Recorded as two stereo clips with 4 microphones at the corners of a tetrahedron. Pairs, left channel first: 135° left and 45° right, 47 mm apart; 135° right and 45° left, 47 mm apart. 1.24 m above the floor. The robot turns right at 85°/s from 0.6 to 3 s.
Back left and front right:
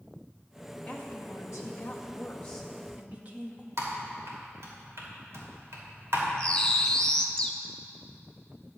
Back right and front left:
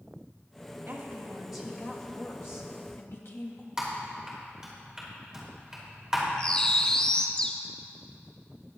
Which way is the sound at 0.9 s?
70° left.